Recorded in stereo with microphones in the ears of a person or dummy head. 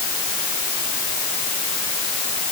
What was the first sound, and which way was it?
Only background noise.